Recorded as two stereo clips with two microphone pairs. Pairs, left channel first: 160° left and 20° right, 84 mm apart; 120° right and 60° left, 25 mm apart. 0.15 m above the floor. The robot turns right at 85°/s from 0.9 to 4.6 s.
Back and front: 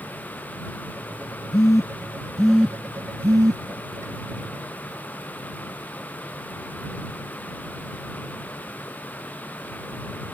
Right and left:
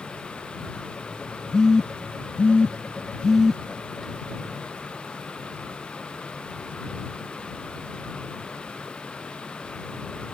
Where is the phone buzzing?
170° left; by 3.6 s 10° right.